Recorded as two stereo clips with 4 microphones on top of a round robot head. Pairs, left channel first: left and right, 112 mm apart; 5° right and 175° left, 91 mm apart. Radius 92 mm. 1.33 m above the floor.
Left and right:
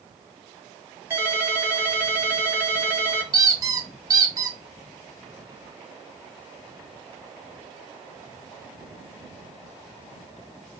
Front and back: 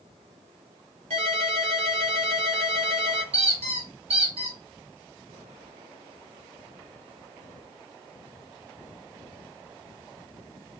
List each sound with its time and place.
1.1 s a ringtone: 160° right, 1.3 m
3.3 s a squeak: 145° right, 0.7 m